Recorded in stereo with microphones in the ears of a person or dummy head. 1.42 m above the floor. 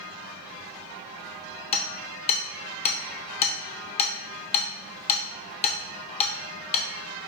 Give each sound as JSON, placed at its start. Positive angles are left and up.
{"t": 1.7, "sound": "hammering", "side_deg": 30, "distance_m": 0.7}